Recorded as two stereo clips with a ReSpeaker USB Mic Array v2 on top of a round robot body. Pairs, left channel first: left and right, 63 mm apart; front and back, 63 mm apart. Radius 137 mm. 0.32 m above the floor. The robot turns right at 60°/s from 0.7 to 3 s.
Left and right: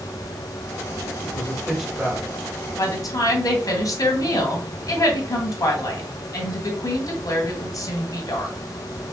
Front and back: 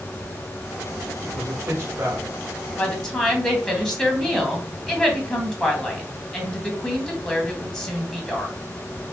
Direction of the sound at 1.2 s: 150° left.